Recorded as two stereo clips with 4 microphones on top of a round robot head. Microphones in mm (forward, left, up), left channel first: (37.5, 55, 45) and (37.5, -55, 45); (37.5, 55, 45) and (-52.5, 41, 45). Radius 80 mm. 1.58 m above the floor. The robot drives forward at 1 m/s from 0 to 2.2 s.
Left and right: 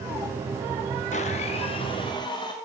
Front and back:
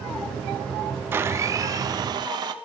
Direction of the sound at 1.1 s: 120° left.